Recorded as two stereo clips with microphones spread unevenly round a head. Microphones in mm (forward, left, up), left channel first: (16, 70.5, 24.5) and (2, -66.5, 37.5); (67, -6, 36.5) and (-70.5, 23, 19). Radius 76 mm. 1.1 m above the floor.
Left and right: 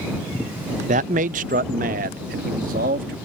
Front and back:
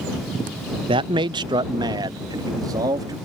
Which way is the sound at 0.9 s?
135° right.